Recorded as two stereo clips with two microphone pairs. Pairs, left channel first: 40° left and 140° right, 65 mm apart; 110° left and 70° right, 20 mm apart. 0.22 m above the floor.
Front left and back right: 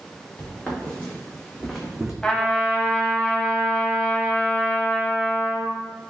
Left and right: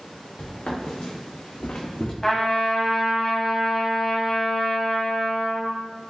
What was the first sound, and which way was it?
Footsteps, 105° left.